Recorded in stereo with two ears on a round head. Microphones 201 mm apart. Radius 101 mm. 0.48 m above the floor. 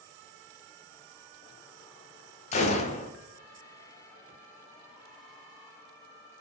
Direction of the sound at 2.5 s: 30° left (ahead or behind).